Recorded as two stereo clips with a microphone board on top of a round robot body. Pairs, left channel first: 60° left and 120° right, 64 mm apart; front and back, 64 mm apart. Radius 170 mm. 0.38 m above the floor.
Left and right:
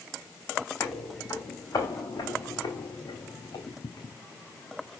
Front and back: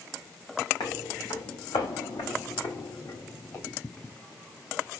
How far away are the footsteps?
About 2 m.